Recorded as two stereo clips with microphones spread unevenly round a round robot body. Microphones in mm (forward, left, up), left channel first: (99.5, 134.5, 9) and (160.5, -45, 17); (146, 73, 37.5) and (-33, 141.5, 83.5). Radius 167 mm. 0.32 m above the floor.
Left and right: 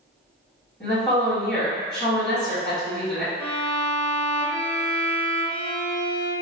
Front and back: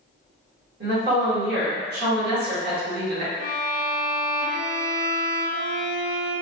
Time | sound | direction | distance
0.8 | a woman speaking | 160° right | 1.9 m
3.4 | a violin | 175° right | 1.6 m